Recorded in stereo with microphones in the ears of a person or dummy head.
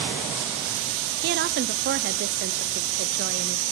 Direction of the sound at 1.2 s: 50° right (ahead or behind).